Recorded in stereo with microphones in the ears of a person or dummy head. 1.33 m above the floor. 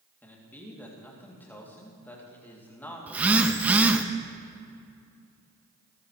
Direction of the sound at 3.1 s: 5° right (ahead or behind).